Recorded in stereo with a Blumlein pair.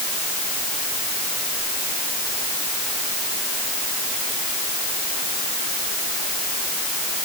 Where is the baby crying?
No baby crying in this recording.